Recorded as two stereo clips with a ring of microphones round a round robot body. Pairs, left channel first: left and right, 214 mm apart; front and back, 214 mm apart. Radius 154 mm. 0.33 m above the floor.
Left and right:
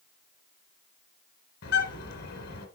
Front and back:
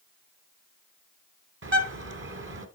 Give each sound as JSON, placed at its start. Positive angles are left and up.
{"t": 1.6, "sound": "a bird", "azimuth_deg": 145, "distance_m": 1.4}